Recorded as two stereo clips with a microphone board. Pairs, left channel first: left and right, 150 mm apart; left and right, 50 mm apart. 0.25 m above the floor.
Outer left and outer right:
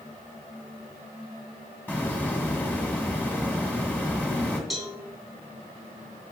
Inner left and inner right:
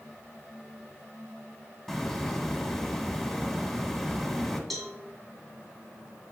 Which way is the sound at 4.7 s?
Centre (ahead or behind).